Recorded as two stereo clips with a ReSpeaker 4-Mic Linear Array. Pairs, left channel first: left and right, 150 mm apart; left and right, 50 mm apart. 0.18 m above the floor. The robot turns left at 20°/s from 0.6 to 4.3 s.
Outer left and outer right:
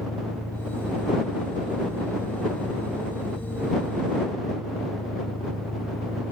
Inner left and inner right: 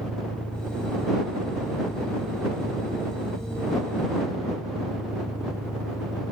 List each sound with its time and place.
0.0 s an engine running: 165° left; by 6.3 s 90° left